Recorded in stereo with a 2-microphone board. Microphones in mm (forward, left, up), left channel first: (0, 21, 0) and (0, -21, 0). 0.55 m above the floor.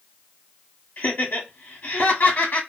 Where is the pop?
I don't hear a pop.